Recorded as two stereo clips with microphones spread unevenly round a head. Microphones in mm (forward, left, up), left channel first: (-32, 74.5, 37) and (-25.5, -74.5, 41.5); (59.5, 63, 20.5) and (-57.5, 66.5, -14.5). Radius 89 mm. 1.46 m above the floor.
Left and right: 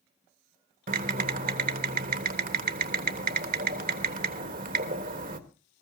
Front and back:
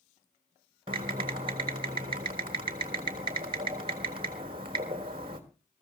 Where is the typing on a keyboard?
115° right, 1.3 m.